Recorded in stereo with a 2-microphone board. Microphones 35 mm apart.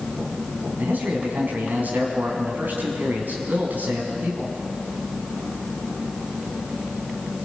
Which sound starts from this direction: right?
A man speaking, at 0.8 s.